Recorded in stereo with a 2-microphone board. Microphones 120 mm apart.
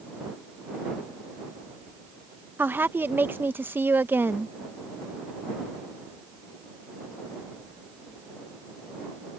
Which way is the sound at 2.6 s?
20° right (ahead or behind).